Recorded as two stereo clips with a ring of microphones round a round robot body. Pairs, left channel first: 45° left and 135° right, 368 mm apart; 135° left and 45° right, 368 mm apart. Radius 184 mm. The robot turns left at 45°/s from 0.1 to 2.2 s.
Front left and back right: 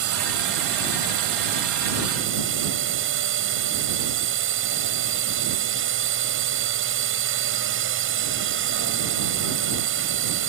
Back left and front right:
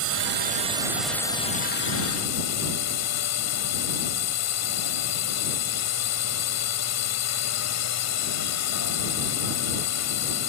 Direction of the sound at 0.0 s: 90° right.